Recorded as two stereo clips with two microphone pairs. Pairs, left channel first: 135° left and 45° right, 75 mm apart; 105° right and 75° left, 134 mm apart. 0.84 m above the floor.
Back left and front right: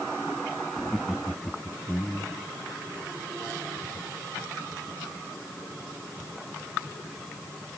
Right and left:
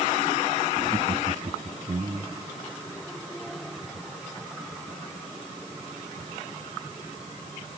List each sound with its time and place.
0.8 s laughter: 45° left